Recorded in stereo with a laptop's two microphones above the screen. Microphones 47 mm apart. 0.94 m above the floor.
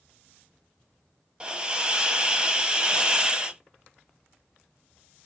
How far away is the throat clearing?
No throat clearing in this recording.